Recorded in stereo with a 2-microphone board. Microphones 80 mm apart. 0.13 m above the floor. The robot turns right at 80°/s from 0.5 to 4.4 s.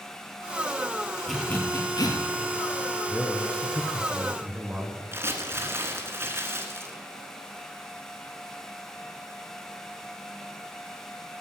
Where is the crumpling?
30° right (ahead or behind), 1.5 m.